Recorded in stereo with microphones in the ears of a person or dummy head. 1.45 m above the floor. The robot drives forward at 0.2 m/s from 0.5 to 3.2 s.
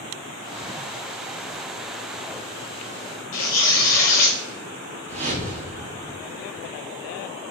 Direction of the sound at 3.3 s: 55° left (ahead or behind).